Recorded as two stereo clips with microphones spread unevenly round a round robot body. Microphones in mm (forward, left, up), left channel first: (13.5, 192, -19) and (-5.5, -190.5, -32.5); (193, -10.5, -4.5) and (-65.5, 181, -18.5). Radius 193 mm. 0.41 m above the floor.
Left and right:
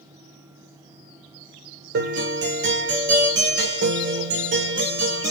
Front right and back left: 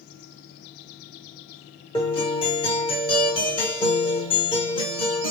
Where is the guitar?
105° right, 1.5 m.